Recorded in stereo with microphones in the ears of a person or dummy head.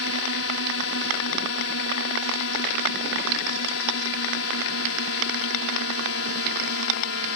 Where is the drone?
75° left (ahead or behind).